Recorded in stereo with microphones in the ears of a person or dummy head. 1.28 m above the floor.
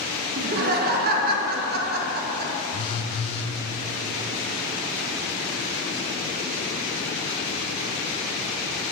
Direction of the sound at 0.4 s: 45° right (ahead or behind).